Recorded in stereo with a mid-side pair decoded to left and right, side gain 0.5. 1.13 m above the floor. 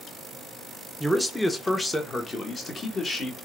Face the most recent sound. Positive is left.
turn(degrees=40)